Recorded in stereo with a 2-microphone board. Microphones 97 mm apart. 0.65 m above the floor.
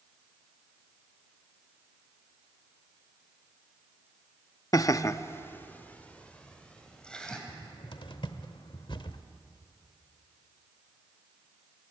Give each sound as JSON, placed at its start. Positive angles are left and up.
{"t": 4.7, "sound": "laughter", "side_deg": 35, "distance_m": 0.7}
{"t": 7.5, "sound": "a cupboard door", "side_deg": 55, "distance_m": 1.0}